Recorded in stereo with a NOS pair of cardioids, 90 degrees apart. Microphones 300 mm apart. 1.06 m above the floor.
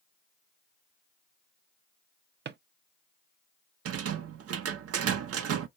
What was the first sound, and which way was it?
A drawer, 35° right.